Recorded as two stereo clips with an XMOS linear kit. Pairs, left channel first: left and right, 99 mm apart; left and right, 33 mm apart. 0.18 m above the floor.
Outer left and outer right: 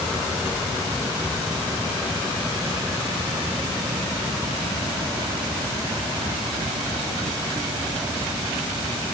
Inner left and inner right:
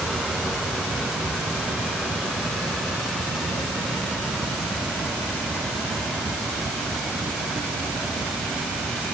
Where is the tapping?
No tapping in this recording.